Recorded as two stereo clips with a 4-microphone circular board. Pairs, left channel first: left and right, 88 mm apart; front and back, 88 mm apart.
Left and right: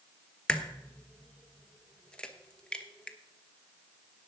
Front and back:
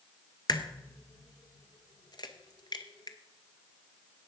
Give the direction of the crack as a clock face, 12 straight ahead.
12 o'clock.